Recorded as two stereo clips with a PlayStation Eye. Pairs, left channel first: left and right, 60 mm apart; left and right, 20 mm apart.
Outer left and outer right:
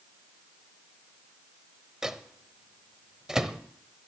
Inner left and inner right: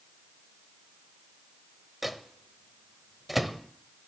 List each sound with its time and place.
2.0 s a microwave: 10° right (ahead or behind), 0.7 m